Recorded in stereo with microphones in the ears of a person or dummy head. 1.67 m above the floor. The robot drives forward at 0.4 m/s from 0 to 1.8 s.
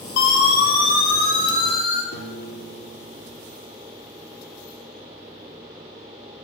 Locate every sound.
0.2 s a siren: 60° left (ahead or behind), 9 m; by 2.0 s 50° left (ahead or behind), 9 m
2.1 s a piano: 55° left (ahead or behind), 4.5 m